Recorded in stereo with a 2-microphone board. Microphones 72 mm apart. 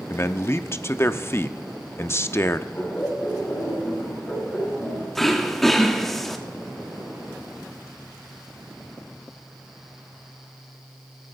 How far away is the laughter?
About 8.5 m.